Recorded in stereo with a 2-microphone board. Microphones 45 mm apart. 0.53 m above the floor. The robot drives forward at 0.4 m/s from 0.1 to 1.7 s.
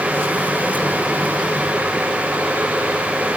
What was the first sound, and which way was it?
Only background noise.